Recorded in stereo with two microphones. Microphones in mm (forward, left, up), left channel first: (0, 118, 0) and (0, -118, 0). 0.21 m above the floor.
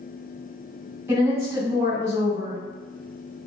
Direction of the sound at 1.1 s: 10° right (ahead or behind).